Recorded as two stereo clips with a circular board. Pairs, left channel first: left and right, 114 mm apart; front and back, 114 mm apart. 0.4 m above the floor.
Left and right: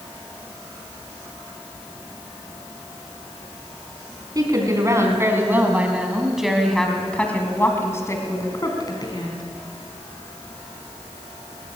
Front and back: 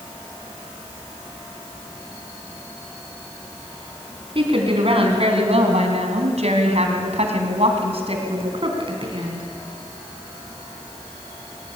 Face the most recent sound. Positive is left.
turn(degrees=135)